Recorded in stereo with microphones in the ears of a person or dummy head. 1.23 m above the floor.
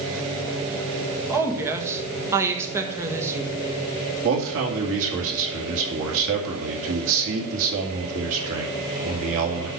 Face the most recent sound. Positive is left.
turn(degrees=-75)  # may be behind; listen again after turning